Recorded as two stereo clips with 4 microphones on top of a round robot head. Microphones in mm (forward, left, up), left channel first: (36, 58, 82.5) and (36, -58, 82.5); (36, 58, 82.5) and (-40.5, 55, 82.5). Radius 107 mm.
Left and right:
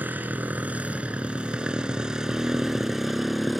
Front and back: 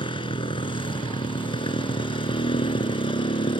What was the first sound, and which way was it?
A motorcycle, 15° right.